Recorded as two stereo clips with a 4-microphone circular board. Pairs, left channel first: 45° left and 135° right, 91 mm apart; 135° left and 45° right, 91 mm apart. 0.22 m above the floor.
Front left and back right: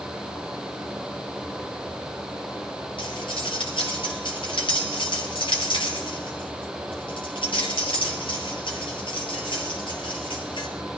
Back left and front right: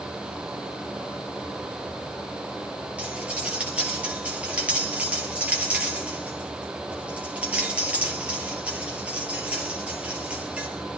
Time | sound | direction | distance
3.0 | cutlery clinking | 30° left | 3 m